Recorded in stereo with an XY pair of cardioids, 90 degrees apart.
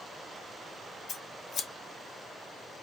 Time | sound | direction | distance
1.1 | scissors | 55° left | 1.1 m